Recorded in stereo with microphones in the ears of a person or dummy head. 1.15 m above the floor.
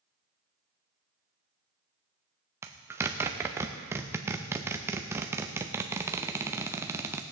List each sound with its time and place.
2.6 s a zipper: 15° right (ahead or behind), 0.6 m